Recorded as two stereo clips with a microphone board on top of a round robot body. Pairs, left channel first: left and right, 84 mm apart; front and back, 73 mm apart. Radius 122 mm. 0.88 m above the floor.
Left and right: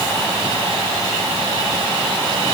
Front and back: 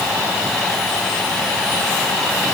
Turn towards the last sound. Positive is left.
No sound to turn to.